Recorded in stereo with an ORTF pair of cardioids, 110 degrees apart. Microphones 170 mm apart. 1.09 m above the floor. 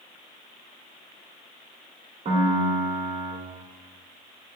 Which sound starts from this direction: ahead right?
A piano, at 2.2 s.